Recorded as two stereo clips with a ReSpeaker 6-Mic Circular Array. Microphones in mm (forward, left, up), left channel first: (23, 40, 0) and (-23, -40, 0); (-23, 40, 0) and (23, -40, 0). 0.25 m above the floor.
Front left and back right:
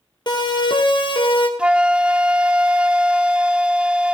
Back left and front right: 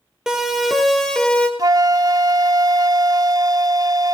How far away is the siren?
About 5.5 m.